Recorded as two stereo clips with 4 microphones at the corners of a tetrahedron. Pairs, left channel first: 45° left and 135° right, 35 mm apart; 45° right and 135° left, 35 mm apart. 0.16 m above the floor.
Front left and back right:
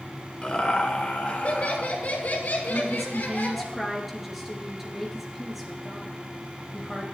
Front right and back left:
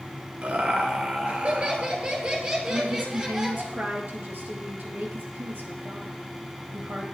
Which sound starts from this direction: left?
Laughter, at 0.4 s.